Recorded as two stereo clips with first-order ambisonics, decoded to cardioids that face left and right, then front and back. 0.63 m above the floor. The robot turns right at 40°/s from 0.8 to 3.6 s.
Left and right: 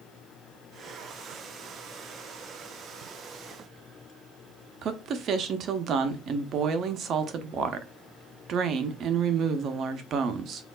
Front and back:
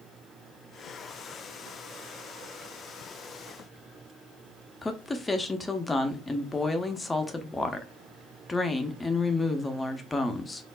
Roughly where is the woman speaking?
Right.